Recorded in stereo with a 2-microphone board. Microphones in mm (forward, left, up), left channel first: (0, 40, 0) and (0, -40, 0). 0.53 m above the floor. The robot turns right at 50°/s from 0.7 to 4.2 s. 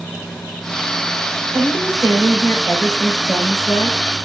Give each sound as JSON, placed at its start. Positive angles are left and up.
{"t": 1.5, "sound": "a woman speaking", "azimuth_deg": -90, "distance_m": 3.0}